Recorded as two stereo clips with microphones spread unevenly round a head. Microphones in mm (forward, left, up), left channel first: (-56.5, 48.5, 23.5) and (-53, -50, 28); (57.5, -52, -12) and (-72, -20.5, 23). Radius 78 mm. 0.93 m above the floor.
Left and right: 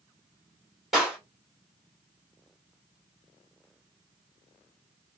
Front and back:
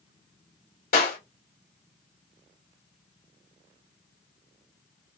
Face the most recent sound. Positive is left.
turn(degrees=0)